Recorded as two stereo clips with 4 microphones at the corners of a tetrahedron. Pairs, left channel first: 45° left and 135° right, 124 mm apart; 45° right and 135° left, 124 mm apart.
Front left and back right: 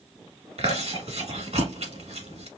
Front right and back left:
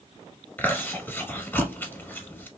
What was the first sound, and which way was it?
Chewing, 115° right.